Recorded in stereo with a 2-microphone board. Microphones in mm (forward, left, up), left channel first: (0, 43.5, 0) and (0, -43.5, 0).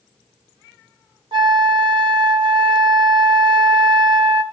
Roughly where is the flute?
Right.